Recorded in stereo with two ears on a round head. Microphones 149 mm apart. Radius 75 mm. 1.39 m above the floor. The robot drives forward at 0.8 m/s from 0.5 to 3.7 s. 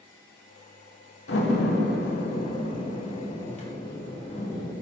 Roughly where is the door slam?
Left.